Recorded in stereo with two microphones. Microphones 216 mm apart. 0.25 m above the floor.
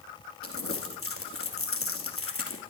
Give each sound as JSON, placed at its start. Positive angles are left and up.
{"t": 0.4, "sound": "crumpling", "side_deg": 70, "distance_m": 2.5}